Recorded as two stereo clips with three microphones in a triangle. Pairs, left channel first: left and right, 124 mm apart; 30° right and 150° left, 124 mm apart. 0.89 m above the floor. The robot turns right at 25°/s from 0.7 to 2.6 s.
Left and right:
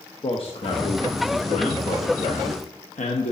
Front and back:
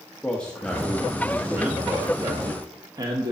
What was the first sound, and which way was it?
A man speaking, 50° left.